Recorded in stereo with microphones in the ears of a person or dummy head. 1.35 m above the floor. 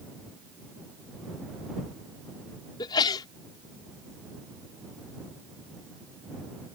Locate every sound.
2.8 s a sneeze: 25° left (ahead or behind)